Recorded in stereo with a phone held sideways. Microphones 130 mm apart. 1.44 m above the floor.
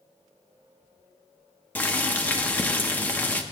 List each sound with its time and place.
1.8 s boiling: 15° left (ahead or behind), 0.8 m